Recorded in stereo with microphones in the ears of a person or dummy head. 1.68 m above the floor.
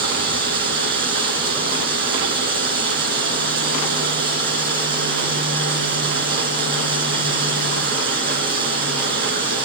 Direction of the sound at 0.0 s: 55° right (ahead or behind).